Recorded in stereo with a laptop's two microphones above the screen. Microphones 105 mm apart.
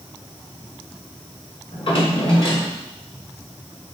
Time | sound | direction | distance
1.7 | a drawer | 55° left (ahead or behind) | 1.4 m